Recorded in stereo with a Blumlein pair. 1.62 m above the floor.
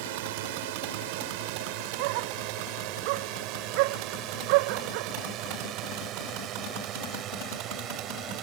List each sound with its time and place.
0.0 s a drone: 50° right; by 8.4 s 30° right
2.0 s a dog barking: 45° right